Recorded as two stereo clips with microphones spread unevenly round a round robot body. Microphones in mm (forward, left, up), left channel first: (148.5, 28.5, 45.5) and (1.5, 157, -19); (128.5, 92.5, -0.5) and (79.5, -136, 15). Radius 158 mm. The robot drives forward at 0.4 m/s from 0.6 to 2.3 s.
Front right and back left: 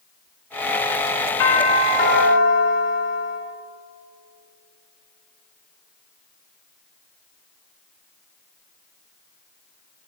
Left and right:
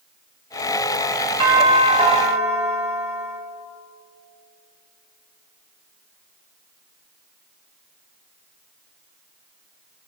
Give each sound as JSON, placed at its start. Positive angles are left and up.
{"t": 1.4, "sound": "a doorbell", "azimuth_deg": -35, "distance_m": 2.0}